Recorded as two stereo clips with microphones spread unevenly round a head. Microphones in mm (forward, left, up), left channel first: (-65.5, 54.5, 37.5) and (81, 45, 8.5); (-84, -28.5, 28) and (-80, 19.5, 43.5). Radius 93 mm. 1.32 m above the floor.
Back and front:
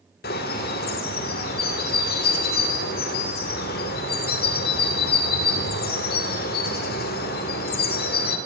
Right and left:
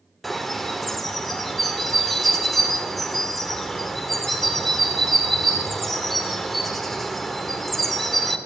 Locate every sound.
0.2 s a bird: 170° left, 2.5 m